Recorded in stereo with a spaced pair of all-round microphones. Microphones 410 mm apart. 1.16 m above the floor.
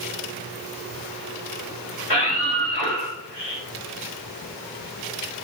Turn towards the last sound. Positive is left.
turn(degrees=65)  # may be behind; listen again after turning